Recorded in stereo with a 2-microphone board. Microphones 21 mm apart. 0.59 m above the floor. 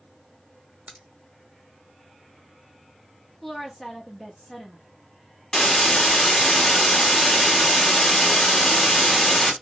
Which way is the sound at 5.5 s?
25° left (ahead or behind).